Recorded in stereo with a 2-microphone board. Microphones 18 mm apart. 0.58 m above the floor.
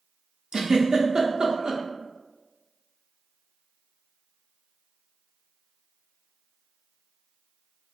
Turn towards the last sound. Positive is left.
turn(degrees=-45)  # may be behind; listen again after turning